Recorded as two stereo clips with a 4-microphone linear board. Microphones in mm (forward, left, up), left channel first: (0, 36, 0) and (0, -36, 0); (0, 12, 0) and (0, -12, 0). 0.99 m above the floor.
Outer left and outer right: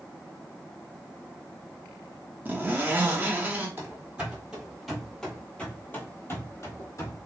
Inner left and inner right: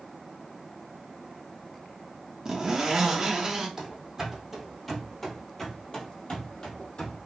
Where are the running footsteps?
30° right (ahead or behind), 1.4 m; by 7.2 s 50° left (ahead or behind), 1.5 m.